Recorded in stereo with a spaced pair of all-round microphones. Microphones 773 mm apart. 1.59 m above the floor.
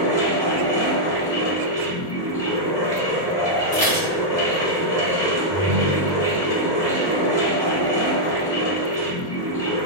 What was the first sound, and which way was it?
A fan, 5° left (ahead or behind).